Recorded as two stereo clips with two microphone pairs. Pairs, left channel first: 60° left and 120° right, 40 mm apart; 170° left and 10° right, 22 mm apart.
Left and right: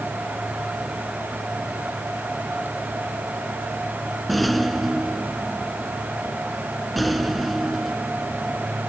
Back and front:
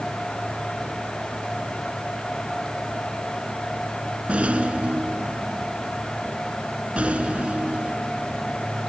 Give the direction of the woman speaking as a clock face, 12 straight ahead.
I don't hear a woman speaking.